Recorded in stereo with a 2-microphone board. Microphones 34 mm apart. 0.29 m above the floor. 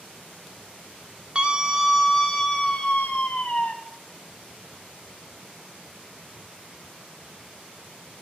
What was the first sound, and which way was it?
A scream, 30° right (ahead or behind).